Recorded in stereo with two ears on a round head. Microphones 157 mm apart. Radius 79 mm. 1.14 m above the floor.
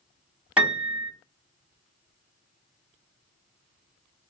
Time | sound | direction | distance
0.6 | a piano | 5° right (ahead or behind) | 1.1 m